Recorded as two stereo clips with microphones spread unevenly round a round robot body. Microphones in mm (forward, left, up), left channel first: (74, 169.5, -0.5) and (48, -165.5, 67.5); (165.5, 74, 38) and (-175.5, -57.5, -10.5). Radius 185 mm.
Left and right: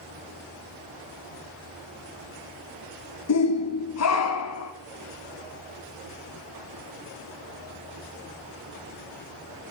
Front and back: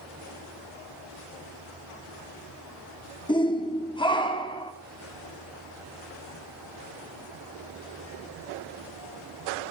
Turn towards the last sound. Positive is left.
turn(degrees=100)